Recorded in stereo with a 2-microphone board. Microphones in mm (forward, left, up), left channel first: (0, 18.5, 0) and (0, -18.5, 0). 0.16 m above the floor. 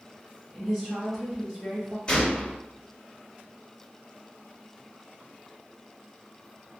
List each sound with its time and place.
0.5 s a woman speaking: 20° left (ahead or behind), 1.9 m
2.1 s a gunshot: 25° left (ahead or behind), 1.4 m